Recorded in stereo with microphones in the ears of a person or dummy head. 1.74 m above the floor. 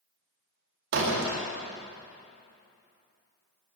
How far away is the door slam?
About 1.9 m.